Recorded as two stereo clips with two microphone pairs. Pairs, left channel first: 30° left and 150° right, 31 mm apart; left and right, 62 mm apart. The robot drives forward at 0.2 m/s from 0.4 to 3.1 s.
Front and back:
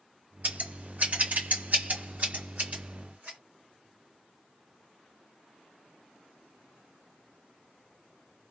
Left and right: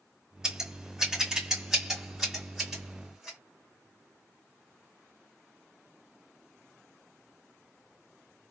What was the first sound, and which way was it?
Scissors, 170° right.